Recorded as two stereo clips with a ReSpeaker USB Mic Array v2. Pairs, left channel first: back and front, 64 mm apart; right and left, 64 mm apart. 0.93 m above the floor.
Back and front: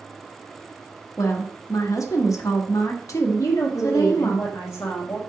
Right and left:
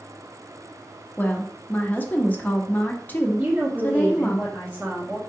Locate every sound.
1.2 s a woman speaking: 150° right, 0.8 m
3.4 s a woman speaking: 160° left, 1.0 m